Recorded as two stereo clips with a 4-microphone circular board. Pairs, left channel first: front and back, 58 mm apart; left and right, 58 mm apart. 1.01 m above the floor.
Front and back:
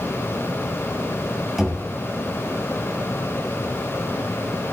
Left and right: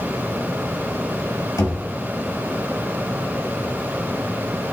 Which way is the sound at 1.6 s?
90° left.